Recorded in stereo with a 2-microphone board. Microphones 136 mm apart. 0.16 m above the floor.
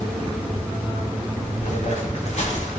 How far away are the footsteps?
About 3.5 m.